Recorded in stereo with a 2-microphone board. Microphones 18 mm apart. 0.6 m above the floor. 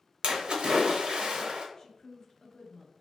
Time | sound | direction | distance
0.2 | a splash | 65° right (ahead or behind) | 0.6 m
1.8 | a woman speaking | 30° left (ahead or behind) | 0.7 m